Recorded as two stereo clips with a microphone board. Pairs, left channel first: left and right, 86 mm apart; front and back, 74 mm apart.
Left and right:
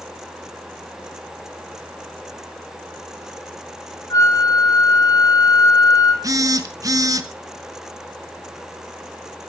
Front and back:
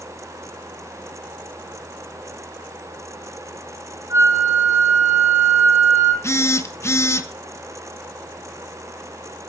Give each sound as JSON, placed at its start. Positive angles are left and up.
{"t": 4.1, "sound": "a flute", "azimuth_deg": 135, "distance_m": 2.5}
{"t": 6.2, "sound": "a phone buzzing", "azimuth_deg": -45, "distance_m": 1.2}